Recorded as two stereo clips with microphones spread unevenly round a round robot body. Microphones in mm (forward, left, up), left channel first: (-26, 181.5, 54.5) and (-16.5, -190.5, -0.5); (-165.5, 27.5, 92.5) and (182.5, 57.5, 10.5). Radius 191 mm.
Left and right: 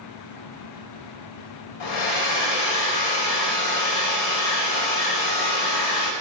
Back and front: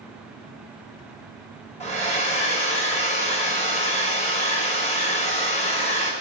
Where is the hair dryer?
110° left, 3 m.